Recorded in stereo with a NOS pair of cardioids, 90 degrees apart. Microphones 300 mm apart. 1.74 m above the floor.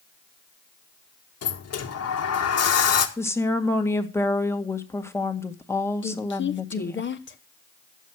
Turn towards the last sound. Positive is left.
turn(degrees=35)